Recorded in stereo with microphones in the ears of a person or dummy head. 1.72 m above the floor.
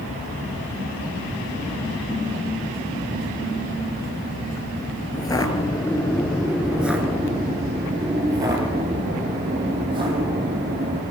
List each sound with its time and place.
5.1 s footsteps: 20° left (ahead or behind), 2 m; by 11.0 s 30° right (ahead or behind), 5 m